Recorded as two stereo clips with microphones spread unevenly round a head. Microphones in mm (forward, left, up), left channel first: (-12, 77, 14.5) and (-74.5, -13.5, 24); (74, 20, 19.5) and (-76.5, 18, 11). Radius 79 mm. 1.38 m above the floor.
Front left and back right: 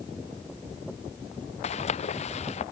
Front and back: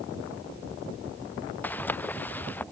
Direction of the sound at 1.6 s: 80° left.